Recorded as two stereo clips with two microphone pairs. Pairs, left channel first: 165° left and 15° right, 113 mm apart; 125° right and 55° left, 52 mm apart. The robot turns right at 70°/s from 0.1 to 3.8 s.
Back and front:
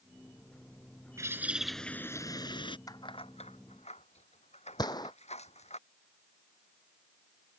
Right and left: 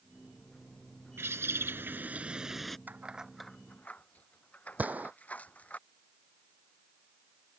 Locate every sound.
1.2 s a bird: 40° left; by 2.8 s 155° left
2.9 s keys jangling: 110° left; by 5.8 s 175° left
4.8 s a gunshot: 115° left